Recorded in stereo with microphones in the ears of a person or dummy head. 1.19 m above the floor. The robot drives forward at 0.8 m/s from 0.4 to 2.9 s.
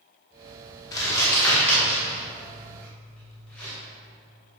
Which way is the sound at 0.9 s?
20° left (ahead or behind).